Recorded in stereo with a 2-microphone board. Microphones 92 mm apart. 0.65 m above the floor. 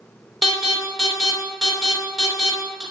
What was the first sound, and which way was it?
An alarm, 5° right (ahead or behind).